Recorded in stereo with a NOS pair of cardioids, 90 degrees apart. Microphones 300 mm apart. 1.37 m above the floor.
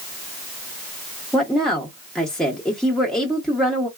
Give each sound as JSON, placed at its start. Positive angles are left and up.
{"t": 1.3, "sound": "a woman speaking", "azimuth_deg": 0, "distance_m": 0.8}